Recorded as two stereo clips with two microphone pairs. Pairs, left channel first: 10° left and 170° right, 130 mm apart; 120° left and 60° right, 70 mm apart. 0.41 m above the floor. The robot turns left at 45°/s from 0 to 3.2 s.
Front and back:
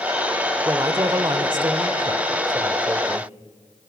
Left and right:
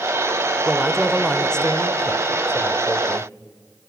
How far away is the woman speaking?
About 1.2 m.